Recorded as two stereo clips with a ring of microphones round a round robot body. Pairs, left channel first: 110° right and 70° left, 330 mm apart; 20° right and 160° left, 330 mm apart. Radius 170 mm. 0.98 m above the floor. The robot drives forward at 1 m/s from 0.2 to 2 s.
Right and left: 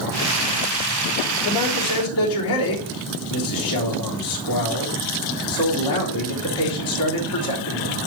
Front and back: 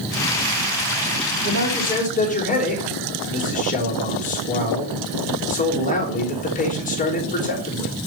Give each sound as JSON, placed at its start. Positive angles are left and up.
{"t": 1.4, "sound": "a man speaking", "azimuth_deg": -80, "distance_m": 3.5}